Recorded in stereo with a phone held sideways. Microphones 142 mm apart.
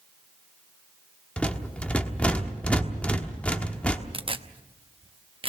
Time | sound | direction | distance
1.4 | a rattle | 10° left (ahead or behind) | 1.2 m
4.1 | tearing paper | 40° right (ahead or behind) | 0.7 m